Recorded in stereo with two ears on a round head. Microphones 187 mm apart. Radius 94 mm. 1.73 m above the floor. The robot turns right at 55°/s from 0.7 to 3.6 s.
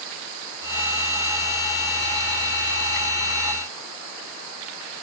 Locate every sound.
Only background noise.